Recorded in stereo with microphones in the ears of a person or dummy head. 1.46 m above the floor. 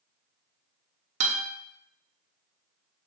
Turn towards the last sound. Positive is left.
turn(degrees=-40)  # may be behind; listen again after turning